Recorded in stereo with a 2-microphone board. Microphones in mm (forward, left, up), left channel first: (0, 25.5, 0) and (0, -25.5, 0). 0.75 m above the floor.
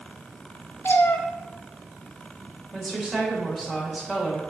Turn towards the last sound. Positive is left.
turn(degrees=0)  # may be behind; listen again after turning